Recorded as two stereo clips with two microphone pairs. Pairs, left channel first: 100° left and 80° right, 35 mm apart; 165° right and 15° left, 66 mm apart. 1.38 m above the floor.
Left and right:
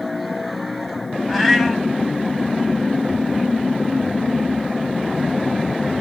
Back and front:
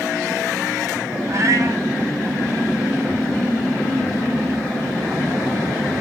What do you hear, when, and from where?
1.3 s a cat meowing: 10° left, 0.8 m